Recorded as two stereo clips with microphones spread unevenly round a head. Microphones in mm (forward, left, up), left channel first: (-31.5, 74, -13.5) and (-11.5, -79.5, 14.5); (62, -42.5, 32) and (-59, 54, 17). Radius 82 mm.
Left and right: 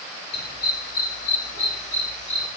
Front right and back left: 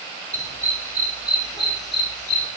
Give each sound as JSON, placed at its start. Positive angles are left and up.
{"t": 0.3, "sound": "a dog barking", "azimuth_deg": 70, "distance_m": 2.5}